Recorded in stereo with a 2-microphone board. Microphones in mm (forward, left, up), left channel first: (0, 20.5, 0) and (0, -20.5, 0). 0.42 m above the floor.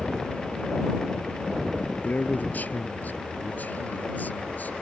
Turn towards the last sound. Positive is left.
turn(degrees=45)  # may be behind; listen again after turning